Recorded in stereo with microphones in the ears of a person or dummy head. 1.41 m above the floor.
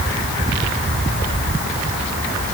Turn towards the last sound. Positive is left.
No sound to turn to.